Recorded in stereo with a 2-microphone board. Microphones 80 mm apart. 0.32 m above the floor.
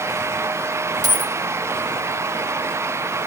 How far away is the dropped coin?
About 0.7 m.